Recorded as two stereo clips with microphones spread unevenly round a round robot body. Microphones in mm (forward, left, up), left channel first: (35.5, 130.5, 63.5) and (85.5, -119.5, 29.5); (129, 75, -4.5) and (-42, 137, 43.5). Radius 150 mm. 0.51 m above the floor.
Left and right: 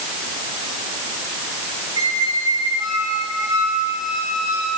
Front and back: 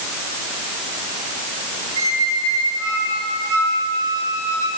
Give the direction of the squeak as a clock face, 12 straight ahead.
5 o'clock.